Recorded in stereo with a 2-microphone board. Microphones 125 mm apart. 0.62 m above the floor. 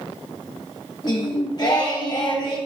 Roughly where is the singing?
Left.